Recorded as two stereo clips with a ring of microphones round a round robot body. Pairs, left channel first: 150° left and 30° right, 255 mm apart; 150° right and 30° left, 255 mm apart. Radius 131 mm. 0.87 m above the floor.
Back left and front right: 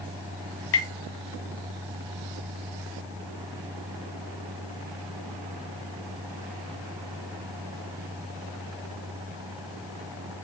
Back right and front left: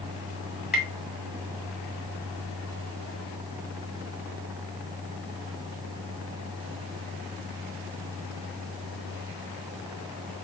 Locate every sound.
0.7 s tapping: 115° left, 1.9 m